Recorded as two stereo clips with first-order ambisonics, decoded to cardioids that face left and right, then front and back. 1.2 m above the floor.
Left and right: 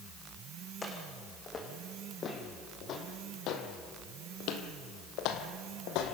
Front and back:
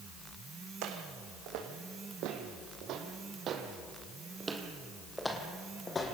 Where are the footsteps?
165° left, 4 m; by 6.1 s 70° left, 3 m.